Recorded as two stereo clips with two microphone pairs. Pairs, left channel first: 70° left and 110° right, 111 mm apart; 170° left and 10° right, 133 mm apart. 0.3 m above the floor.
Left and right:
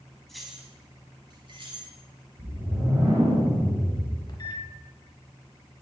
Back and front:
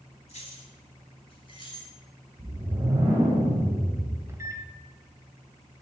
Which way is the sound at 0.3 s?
155° left.